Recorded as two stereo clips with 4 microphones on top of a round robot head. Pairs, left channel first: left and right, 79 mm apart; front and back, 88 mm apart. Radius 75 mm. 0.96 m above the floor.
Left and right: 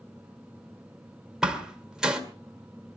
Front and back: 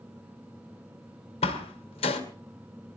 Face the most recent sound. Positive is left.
turn(degrees=-5)